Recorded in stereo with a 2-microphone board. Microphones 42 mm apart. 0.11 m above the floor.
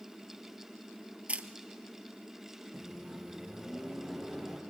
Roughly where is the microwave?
Centre.